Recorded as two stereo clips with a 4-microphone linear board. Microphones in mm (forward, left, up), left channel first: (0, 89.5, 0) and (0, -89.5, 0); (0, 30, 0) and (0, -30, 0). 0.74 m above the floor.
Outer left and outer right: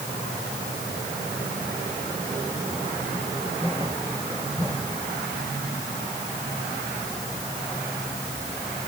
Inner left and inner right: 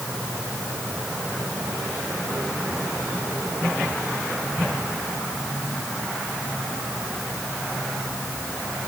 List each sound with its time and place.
Only background noise.